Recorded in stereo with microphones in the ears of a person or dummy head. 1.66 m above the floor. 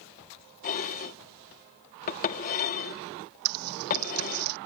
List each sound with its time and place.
0.6 s dishes clattering: 50° left (ahead or behind)
3.5 s typing on a keyboard: 85° right